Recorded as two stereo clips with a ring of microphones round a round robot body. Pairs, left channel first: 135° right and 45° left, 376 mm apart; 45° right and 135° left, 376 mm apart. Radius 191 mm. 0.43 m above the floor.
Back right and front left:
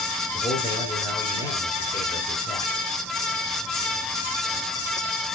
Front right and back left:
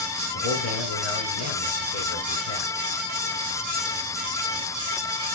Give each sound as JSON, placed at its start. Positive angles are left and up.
{"t": 0.3, "sound": "a man speaking", "azimuth_deg": -55, "distance_m": 5.5}